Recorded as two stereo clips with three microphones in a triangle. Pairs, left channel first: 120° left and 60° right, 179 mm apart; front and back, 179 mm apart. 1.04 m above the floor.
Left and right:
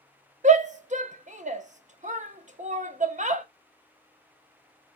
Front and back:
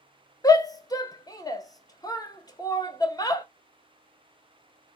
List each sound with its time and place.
0.4 s a shout: 60° right, 0.6 m